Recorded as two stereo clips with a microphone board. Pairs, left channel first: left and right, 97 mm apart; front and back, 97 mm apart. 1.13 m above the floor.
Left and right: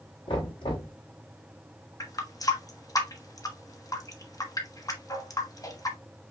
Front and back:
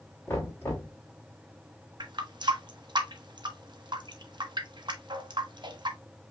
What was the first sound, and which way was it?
Knocking, 65° left.